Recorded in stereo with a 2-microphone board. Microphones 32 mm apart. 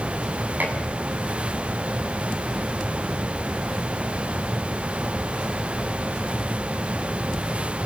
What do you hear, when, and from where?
0.6 s dishes clattering: 65° right (ahead or behind), 7.5 m